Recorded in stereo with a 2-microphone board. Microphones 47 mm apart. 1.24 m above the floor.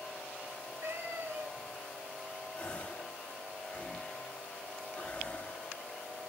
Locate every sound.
0.5 s a cat meowing: 65° right (ahead or behind), 3 m
2.5 s a gasp: 25° left (ahead or behind), 2 m